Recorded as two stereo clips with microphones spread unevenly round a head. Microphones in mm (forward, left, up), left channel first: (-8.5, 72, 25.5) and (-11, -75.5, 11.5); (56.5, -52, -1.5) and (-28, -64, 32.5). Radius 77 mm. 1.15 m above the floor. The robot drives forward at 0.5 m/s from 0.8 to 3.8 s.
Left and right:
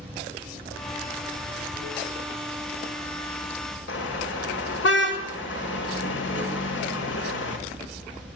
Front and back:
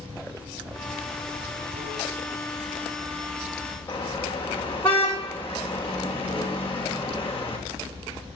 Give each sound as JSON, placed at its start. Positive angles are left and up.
{"t": 0.0, "sound": "running water", "azimuth_deg": -170, "distance_m": 4.5}
{"t": 3.9, "sound": "a car horn", "azimuth_deg": 90, "distance_m": 2.5}